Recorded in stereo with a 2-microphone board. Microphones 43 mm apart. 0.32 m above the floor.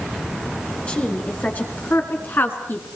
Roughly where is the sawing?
No sawing in this recording.